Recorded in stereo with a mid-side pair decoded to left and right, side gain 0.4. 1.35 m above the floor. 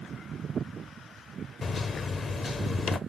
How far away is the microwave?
About 0.5 m.